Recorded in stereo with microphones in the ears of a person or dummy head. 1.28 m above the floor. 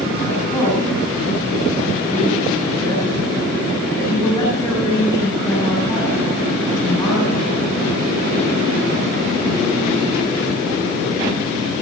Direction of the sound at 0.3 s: 20° left (ahead or behind).